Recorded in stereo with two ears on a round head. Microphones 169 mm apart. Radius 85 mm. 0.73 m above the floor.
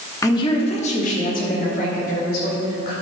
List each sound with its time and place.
0.2 s a woman speaking: 15° left (ahead or behind), 1.0 m; by 2.9 s 55° left (ahead or behind), 3.5 m